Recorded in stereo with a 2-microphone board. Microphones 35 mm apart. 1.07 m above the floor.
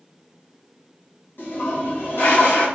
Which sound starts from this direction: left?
A toilet flushing, at 1.4 s.